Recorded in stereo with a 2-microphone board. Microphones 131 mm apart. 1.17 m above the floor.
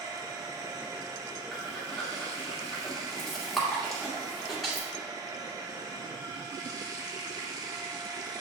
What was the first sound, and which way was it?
Running water, 30° right (ahead or behind).